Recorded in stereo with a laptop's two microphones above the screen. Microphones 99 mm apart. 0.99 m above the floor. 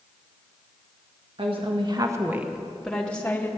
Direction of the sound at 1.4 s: 65° right (ahead or behind).